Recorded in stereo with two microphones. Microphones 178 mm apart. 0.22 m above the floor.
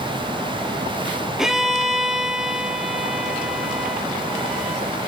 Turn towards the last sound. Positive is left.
turn(degrees=0)  # may be behind; listen again after turning